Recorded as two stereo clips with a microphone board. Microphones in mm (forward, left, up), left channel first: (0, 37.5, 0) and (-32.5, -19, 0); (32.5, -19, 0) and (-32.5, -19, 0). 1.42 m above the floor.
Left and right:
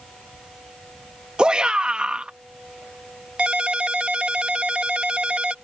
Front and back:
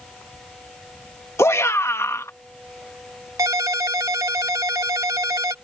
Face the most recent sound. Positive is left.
turn(degrees=170)